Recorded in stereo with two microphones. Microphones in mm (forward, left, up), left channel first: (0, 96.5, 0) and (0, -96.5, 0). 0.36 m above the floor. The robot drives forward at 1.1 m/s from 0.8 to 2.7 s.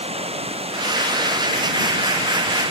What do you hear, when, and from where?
0.0 s running water: 35° right (ahead or behind); by 2.7 s 30° right (ahead or behind)